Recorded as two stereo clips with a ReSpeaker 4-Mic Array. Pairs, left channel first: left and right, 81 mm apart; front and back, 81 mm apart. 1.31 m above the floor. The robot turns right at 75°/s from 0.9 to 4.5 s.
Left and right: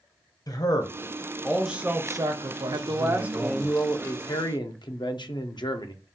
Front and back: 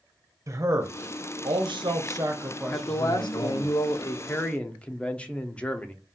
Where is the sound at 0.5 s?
130° left, 0.6 m; by 3.7 s 20° right, 0.6 m.